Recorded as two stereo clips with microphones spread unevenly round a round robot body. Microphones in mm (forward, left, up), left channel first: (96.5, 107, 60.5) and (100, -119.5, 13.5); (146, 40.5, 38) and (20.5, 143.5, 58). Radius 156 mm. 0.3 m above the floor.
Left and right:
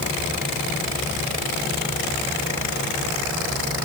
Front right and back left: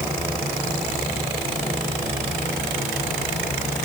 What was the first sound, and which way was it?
Only background noise.